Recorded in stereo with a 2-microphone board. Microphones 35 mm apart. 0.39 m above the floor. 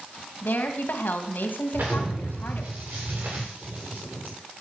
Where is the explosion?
65° right (ahead or behind), 9 m.